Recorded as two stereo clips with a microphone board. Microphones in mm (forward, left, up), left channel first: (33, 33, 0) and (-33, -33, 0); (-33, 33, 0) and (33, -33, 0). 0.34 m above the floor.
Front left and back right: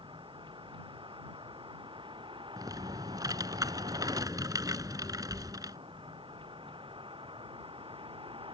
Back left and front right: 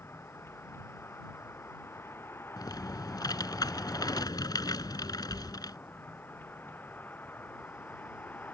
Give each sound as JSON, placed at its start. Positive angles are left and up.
{"t": 0.0, "sound": "a vehicle", "azimuth_deg": -160}
{"t": 2.6, "sound": "typing on a keyboard", "azimuth_deg": 180}